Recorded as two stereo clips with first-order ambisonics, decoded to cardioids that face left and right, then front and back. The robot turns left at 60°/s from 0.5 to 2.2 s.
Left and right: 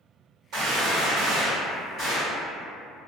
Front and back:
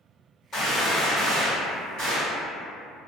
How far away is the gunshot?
About 1.4 m.